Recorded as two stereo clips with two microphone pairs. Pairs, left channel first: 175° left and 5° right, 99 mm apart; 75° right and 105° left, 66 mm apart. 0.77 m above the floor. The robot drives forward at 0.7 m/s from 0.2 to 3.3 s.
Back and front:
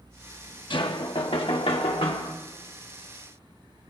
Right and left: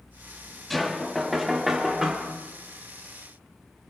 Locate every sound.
0.7 s knocking: 165° right, 0.9 m; by 2.3 s 175° right, 2 m